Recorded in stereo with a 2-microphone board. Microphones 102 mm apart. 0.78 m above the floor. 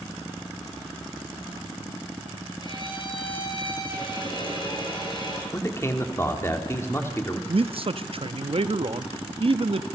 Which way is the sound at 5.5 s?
25° left (ahead or behind).